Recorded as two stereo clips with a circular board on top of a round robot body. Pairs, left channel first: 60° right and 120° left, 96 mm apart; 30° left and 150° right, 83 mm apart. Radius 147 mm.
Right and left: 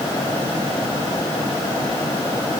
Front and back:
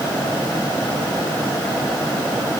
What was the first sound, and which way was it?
Only background noise.